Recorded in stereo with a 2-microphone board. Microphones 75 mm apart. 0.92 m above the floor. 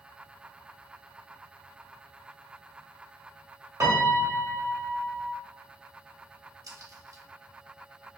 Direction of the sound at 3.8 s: 45° right (ahead or behind).